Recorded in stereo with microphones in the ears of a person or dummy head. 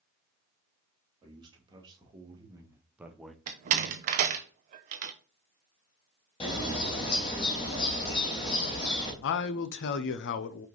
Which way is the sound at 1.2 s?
35° right (ahead or behind).